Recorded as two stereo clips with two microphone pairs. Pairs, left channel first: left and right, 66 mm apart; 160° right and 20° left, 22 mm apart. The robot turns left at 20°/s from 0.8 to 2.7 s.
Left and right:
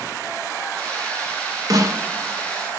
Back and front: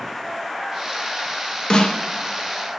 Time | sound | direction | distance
1.7 | a snare drum | 115° right | 0.7 m